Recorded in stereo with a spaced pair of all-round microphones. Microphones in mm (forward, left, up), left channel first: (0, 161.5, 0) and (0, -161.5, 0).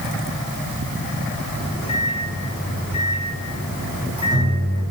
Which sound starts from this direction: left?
A microwave, at 1.5 s.